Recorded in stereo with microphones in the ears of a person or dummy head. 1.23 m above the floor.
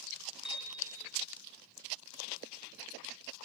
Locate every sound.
0.5 s a piano: 5° right (ahead or behind), 5 m